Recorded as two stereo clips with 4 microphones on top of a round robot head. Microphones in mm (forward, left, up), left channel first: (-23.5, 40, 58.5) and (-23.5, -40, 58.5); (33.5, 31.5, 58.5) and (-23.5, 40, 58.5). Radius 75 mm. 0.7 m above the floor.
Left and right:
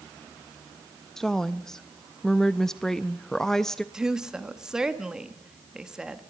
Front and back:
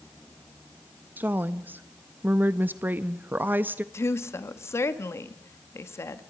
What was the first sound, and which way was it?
A woman speaking, 170° left.